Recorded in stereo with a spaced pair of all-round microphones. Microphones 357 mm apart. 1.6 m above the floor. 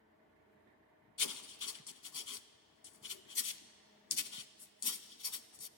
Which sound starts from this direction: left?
Writing, at 1.2 s.